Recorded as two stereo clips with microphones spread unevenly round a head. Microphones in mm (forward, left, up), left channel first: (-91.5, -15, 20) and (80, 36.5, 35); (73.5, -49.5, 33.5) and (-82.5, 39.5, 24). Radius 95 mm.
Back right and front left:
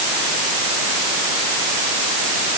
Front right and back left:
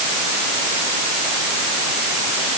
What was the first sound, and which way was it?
Only background noise.